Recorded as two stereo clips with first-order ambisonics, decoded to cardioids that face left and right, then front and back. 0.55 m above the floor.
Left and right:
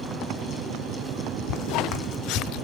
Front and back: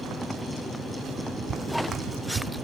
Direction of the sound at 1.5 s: 110° left.